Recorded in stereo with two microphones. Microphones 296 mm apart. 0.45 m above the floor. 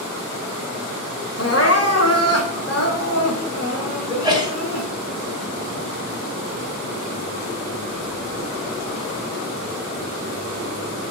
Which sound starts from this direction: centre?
A sneeze, at 4.1 s.